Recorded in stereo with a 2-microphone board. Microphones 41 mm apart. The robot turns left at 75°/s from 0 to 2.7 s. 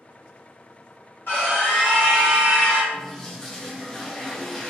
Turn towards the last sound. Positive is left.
turn(degrees=15)  # may be behind; listen again after turning